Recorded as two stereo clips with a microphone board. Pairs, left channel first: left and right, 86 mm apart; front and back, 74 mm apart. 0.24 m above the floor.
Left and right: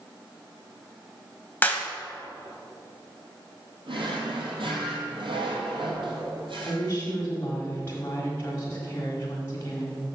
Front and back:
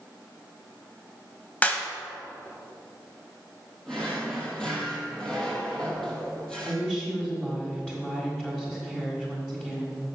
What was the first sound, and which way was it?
A clap, 45° left.